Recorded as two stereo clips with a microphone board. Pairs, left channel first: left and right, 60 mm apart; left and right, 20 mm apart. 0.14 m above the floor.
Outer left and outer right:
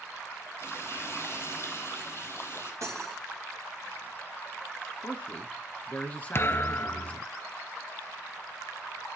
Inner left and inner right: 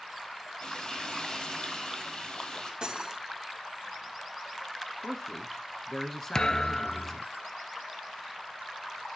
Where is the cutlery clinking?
55° right (ahead or behind), 2 m.